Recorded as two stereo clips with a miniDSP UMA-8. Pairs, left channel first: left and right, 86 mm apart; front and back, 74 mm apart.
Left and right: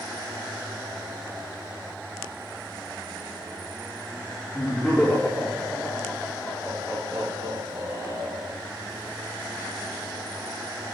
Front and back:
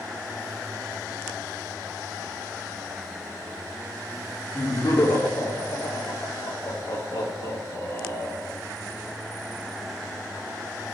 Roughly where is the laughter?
Ahead left.